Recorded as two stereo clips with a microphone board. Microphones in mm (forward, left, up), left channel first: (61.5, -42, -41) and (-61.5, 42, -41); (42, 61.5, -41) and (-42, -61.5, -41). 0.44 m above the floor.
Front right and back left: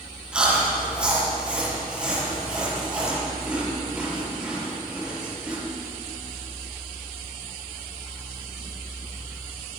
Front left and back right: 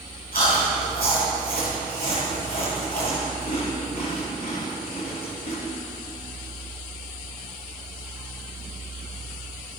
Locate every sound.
0.3 s chewing: 60° left, 7 m